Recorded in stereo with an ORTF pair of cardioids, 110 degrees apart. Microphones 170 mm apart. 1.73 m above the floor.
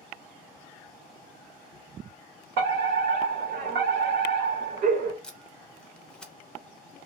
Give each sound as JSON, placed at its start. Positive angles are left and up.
{"t": 2.6, "sound": "a fire alarm", "azimuth_deg": -65, "distance_m": 1.6}
{"t": 5.2, "sound": "tape being pulled", "azimuth_deg": 5, "distance_m": 0.7}